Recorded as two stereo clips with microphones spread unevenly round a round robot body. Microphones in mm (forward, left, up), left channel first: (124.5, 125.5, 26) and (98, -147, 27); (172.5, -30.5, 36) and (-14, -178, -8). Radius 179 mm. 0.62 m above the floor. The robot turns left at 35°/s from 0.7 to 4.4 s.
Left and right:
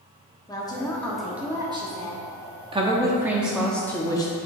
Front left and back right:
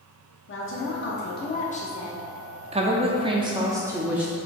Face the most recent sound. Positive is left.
turn(degrees=145)